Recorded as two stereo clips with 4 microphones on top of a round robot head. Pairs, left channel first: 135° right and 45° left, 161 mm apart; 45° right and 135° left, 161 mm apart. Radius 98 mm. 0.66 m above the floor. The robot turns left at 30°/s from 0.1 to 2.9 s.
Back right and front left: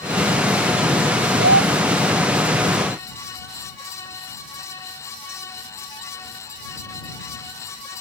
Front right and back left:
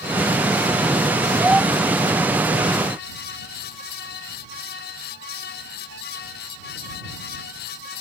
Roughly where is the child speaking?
Ahead left.